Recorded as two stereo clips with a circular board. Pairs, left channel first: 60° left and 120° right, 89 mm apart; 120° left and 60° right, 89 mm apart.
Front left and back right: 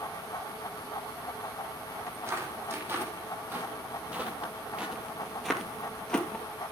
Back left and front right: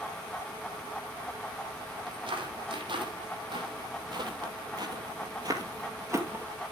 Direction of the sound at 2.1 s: 60° right.